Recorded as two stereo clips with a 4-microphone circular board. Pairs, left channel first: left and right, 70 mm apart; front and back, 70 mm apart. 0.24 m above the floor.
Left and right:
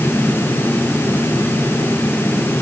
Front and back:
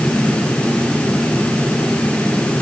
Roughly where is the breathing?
I don't hear breathing.